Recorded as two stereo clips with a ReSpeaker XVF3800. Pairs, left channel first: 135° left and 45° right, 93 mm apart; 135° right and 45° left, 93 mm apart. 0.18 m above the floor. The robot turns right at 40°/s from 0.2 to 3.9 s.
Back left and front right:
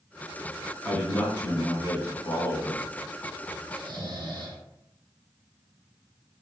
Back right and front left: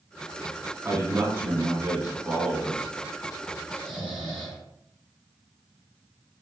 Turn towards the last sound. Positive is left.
turn(degrees=-50)